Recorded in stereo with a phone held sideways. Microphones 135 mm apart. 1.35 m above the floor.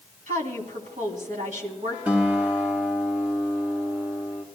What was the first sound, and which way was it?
A woman speaking, 65° right (ahead or behind).